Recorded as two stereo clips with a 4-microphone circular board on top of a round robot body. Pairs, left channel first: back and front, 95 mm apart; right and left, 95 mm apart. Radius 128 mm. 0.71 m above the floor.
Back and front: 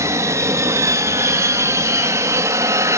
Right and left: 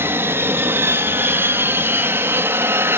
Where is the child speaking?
I don't hear a child speaking.